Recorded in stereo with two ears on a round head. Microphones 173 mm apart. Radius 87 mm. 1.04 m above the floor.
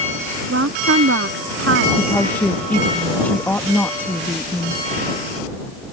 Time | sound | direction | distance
0.5 | a woman speaking | 70° right (ahead or behind) | ?
2.0 | a woman speaking | 10° left (ahead or behind) | ?